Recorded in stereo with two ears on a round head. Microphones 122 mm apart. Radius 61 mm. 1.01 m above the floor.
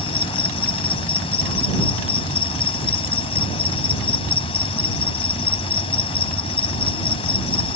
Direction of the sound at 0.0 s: 40° left (ahead or behind).